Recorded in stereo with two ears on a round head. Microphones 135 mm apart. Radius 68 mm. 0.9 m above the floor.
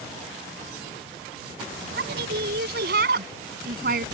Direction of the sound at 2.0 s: 70° right (ahead or behind).